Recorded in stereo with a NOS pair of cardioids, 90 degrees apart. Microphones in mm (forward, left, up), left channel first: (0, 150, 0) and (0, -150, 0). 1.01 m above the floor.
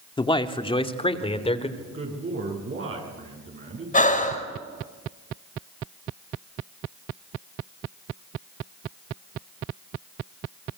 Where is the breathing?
25° left, 5 m.